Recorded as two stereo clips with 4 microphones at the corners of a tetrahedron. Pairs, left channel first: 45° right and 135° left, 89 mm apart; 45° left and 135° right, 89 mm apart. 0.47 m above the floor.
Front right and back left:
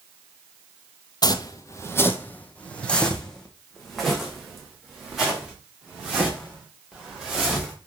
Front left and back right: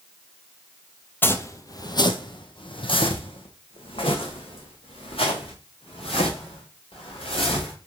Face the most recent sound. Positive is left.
turn(degrees=50)